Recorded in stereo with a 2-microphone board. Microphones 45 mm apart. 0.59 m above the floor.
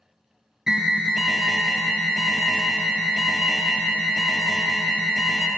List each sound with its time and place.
0.7 s an alarm: 15° right (ahead or behind), 1.2 m